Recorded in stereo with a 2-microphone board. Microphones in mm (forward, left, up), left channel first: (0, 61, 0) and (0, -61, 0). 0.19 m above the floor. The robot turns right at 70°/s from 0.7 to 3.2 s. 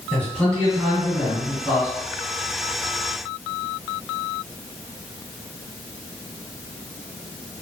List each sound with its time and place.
0.1 s a man speaking: 10° left (ahead or behind), 1.6 m; by 1.9 s 25° right (ahead or behind), 1.6 m